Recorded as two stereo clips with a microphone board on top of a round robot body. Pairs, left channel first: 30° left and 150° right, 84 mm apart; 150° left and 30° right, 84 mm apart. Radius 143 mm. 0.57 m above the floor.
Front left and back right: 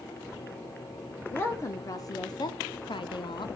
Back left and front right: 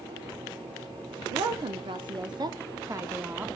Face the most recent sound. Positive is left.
turn(degrees=40)